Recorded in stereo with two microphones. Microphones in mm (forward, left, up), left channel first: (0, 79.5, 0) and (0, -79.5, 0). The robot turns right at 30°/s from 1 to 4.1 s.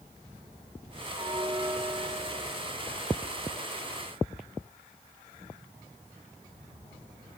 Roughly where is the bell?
Behind right.